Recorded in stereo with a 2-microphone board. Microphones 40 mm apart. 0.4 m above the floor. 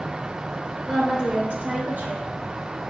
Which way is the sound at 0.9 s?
20° right (ahead or behind).